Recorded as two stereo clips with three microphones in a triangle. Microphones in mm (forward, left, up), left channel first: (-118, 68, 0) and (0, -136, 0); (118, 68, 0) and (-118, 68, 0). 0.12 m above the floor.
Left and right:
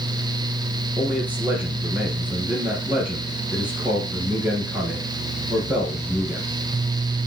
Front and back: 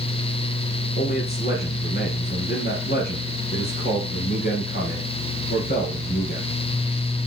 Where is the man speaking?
20° left, 2.5 m.